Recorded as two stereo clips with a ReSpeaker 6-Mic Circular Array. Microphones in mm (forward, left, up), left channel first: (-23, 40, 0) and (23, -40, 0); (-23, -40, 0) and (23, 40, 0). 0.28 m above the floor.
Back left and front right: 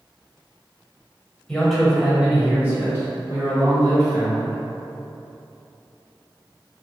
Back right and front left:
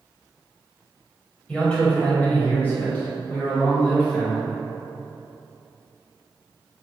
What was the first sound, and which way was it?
A man speaking, 175° right.